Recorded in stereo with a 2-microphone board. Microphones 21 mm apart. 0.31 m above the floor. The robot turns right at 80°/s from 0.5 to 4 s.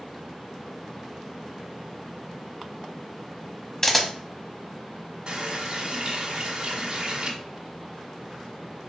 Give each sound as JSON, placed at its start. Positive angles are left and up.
{"t": 3.8, "sound": "a camera shutter", "side_deg": 20, "distance_m": 0.8}
{"t": 5.3, "sound": "a running tap", "side_deg": -45, "distance_m": 1.3}